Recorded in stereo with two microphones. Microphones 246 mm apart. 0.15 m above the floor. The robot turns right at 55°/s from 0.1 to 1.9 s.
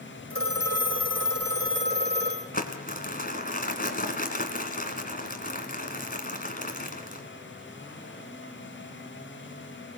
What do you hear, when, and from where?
0.3 s a phone ringing: 130° right, 4 m; by 2.4 s 40° right, 4 m
2.5 s crumpling: 35° left (ahead or behind), 1.9 m